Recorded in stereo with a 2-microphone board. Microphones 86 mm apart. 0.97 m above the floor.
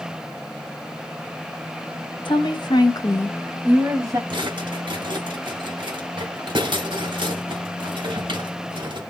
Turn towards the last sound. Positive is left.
turn(degrees=-70)  # may be behind; listen again after turning